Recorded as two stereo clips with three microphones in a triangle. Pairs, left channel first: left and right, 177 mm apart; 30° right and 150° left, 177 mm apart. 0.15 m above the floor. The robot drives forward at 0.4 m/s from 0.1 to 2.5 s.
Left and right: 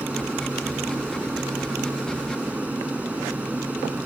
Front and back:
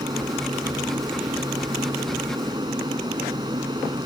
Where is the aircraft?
165° right.